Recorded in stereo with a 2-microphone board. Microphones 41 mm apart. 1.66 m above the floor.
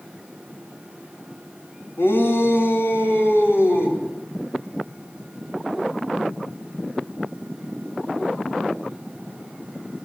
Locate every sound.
2.0 s a shout: 85° left, 3.5 m